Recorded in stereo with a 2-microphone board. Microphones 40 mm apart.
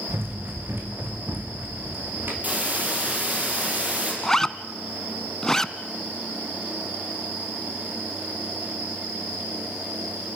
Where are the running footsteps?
65° right (ahead or behind), 4 m; by 2.3 s 50° right (ahead or behind), 4.5 m.